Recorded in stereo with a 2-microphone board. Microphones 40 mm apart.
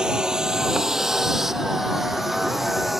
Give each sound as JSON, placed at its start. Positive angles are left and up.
{"t": 0.0, "sound": "a vehicle", "side_deg": -20}